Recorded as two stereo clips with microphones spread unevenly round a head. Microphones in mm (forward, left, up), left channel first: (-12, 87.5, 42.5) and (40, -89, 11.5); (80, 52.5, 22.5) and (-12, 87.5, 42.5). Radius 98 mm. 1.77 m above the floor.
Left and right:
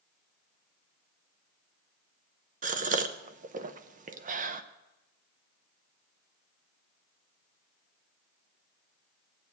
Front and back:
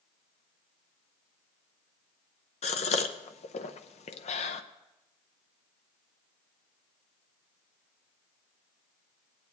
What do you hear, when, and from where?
2.6 s a gasp: 25° right, 0.7 m